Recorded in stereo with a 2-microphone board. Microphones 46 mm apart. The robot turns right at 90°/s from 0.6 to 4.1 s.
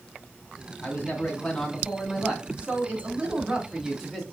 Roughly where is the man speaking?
Ahead left.